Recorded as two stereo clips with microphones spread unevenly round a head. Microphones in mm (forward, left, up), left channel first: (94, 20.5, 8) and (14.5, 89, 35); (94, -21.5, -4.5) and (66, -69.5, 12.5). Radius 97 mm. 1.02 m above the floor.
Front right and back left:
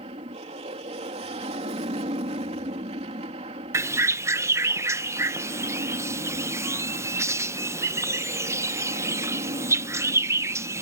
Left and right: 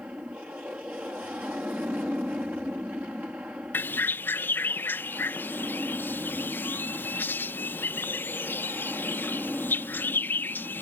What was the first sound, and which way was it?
An aircraft, 165° left.